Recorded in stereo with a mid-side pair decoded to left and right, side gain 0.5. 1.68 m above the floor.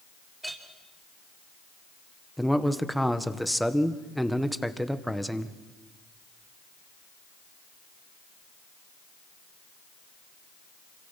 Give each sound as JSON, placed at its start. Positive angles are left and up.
{"t": 0.4, "sound": "a clink", "azimuth_deg": -10, "distance_m": 4.5}
{"t": 2.4, "sound": "a man speaking", "azimuth_deg": 0, "distance_m": 1.6}